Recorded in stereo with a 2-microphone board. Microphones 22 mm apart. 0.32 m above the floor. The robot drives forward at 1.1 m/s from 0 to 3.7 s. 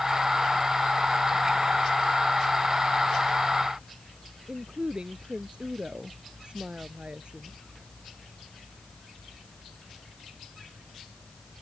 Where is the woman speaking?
50° right (ahead or behind).